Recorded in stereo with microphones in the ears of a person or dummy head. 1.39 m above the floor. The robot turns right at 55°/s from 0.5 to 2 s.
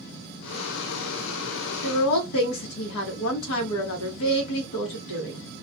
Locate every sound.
1.8 s a woman speaking: 80° left, 0.9 m; by 5.4 s 75° left (ahead or behind), 0.9 m